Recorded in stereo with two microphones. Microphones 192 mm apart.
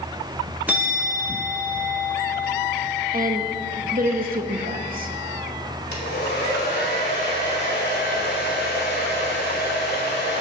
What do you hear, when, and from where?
0.7 s a bell: 10° right (ahead or behind), 1.0 m
3.1 s a woman speaking: 50° right (ahead or behind), 0.9 m
5.9 s a hair dryer: 60° left (ahead or behind), 2.5 m